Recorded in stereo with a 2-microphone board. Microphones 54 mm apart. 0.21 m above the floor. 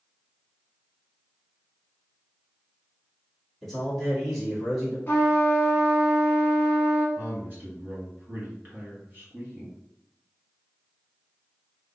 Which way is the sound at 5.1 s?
35° left (ahead or behind).